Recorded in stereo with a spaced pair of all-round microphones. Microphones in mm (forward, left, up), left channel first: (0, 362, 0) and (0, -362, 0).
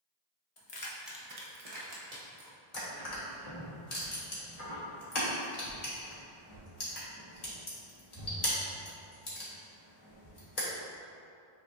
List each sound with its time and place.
0.6 s keys jangling: 50° left (ahead or behind), 0.8 m; by 2.6 s 75° right (ahead or behind), 1.9 m
2.7 s crushing: 60° left (ahead or behind), 1.2 m